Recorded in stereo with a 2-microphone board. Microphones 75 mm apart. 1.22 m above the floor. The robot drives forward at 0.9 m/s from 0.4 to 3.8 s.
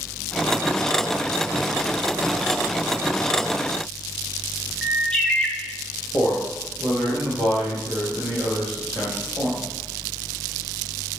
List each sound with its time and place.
4.8 s a bird: 10° left (ahead or behind), 1.0 m
6.1 s a man speaking: 5° left (ahead or behind), 2 m